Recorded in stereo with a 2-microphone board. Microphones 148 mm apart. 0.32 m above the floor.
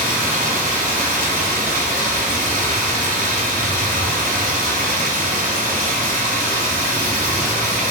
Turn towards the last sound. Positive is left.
turn(degrees=-75)  # may be behind; listen again after turning